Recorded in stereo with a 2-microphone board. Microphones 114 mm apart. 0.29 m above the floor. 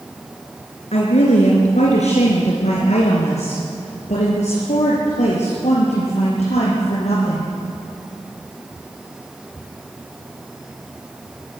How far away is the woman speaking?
About 3.5 m.